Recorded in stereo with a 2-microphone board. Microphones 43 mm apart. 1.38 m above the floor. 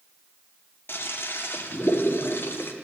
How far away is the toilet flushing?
About 1.0 m.